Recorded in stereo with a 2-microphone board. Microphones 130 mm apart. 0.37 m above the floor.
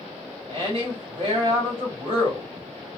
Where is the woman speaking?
45° right (ahead or behind), 1.6 m.